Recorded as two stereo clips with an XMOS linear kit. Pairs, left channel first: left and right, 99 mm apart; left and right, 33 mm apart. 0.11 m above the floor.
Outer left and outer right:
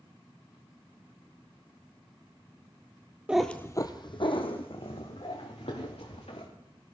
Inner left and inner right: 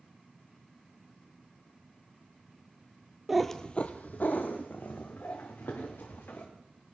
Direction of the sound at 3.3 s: 10° right (ahead or behind).